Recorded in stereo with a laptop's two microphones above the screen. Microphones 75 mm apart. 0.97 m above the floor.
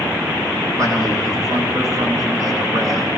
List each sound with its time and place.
0.8 s a man speaking: 45° right (ahead or behind), 9 m